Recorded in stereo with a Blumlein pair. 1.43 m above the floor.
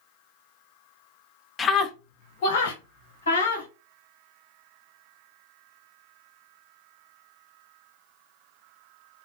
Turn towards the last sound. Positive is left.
turn(degrees=65)